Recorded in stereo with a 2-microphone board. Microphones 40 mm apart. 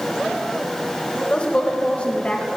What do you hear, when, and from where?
1.3 s a woman speaking: 30° left (ahead or behind), 1.4 m